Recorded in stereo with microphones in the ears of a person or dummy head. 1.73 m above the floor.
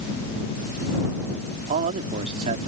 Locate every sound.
1.7 s a man speaking: 40° right (ahead or behind)